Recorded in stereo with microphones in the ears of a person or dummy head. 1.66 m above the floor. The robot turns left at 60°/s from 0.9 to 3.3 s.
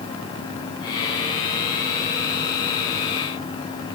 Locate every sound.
Only background noise.